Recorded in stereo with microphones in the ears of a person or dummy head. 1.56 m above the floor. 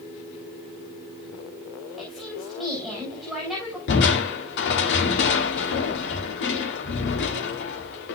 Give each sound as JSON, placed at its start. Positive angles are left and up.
{"t": 2.0, "sound": "a woman speaking", "side_deg": 0, "distance_m": 4.5}
{"t": 3.9, "sound": "crushing", "side_deg": 65, "distance_m": 2.0}